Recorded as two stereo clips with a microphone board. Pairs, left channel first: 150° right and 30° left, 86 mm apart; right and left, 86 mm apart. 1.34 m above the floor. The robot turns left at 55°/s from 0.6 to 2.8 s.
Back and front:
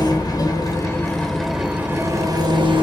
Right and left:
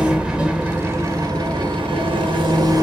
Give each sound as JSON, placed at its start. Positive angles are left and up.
{"t": 0.0, "sound": "an engine running", "azimuth_deg": 170, "distance_m": 0.9}